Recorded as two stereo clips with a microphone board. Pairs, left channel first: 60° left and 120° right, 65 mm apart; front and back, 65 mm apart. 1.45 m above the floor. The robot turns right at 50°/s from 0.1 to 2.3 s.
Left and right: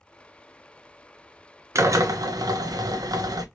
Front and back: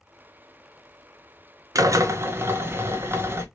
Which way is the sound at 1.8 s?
160° right.